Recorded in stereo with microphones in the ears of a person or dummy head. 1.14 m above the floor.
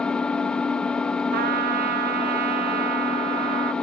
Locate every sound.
0.0 s an engine running: 5° left (ahead or behind), 0.7 m
1.3 s a trumpet: 50° right (ahead or behind), 0.6 m